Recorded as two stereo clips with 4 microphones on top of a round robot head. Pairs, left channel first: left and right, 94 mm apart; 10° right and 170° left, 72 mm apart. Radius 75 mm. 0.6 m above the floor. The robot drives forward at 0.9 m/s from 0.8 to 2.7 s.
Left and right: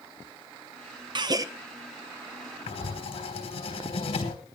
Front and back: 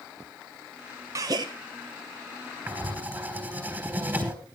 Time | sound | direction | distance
1.1 | a gasp | 130° right | 0.7 m
2.7 | writing | 110° left | 3.5 m